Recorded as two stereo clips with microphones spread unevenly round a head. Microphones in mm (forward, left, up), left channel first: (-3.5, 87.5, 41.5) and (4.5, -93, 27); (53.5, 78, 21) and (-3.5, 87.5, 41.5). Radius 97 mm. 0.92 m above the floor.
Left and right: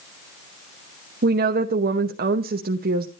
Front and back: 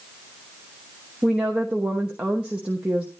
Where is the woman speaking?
105° right, 0.9 m.